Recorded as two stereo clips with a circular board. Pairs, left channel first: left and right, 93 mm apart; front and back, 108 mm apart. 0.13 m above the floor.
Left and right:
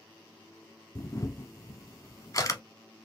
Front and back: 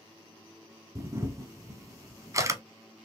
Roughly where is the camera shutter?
Behind left.